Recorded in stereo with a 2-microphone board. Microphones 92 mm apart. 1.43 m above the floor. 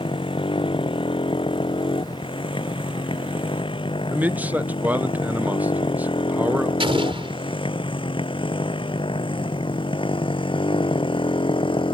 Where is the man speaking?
15° right (ahead or behind).